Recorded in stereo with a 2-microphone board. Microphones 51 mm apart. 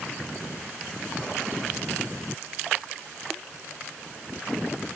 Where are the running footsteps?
I don't hear running footsteps.